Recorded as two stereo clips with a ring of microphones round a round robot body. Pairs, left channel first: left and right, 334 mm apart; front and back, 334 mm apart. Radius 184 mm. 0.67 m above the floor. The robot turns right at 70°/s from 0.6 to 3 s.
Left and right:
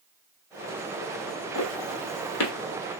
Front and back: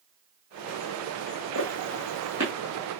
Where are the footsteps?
40° left, 1.4 m; by 2.5 s 105° left, 1.4 m.